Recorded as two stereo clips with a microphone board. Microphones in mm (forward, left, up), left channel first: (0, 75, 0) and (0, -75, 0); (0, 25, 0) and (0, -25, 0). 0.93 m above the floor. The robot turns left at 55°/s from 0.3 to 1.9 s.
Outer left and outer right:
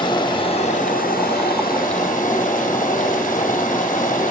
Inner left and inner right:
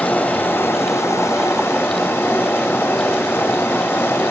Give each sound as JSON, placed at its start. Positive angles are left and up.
{"t": 0.0, "sound": "running water", "azimuth_deg": 150, "distance_m": 1.3}